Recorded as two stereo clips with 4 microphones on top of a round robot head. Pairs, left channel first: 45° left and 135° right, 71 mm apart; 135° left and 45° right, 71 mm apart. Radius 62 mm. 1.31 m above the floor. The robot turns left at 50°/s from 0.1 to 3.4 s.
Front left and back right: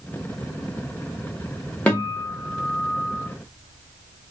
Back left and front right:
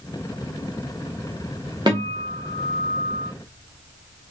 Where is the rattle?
No rattle in this recording.